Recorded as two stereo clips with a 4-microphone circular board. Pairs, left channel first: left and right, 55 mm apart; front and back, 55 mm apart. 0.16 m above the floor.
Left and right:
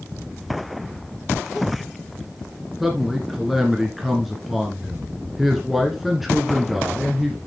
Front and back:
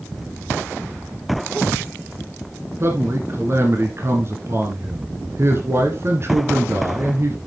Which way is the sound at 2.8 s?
Straight behind.